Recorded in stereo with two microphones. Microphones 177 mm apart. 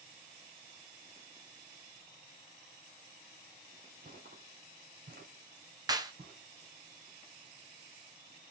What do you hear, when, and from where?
4.0 s footsteps: 60° right (ahead or behind), 1.4 m; by 6.4 s 65° right (ahead or behind), 3 m
5.9 s a clap: 25° right (ahead or behind), 0.6 m